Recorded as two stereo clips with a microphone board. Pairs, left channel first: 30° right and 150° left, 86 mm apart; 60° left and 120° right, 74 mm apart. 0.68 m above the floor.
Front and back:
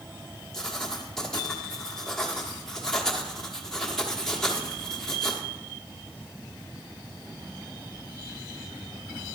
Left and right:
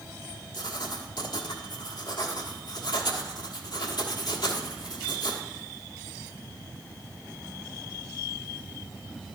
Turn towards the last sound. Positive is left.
turn(degrees=55)